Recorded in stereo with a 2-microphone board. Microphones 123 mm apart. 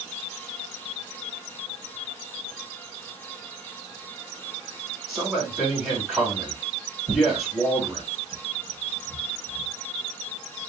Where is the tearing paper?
45° right (ahead or behind), 1.1 m.